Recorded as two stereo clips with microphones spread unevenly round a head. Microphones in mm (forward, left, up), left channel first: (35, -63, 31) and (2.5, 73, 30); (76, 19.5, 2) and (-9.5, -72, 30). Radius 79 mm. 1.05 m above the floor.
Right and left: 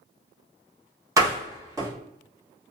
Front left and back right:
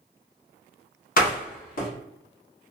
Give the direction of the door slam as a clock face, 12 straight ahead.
11 o'clock.